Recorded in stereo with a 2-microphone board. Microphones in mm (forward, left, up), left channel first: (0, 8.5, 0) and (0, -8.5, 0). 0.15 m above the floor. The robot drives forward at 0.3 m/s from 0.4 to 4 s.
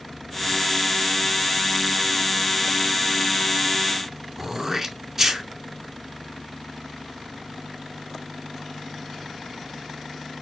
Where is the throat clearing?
25° right (ahead or behind), 0.7 m.